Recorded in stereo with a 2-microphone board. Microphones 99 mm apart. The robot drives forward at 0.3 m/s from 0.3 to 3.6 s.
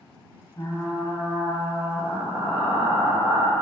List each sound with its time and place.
0.6 s frying: 40° left (ahead or behind), 0.5 m; by 3.5 s 15° left (ahead or behind), 1.3 m